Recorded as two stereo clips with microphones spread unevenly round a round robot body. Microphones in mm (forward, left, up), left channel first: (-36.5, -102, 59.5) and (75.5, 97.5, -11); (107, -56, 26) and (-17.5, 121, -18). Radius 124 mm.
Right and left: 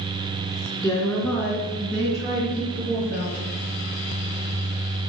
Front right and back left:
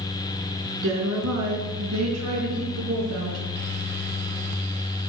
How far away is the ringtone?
I don't hear a ringtone.